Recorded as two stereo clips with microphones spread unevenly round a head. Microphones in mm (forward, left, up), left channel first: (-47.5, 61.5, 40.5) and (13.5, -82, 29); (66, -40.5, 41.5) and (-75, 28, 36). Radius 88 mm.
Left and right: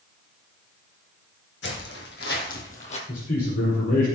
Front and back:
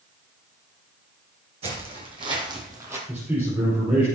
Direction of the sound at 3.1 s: 70° left.